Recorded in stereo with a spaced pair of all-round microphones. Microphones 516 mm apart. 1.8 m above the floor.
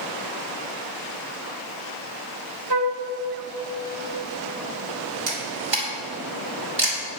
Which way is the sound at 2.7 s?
50° right (ahead or behind).